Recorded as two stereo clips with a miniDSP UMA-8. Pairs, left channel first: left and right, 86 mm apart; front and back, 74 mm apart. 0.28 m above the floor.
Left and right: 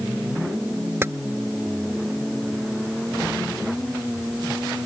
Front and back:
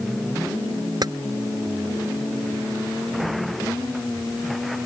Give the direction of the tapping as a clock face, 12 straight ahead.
5 o'clock.